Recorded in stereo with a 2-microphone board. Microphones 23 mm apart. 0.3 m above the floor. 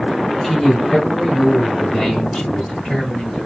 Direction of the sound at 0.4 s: 10° left (ahead or behind).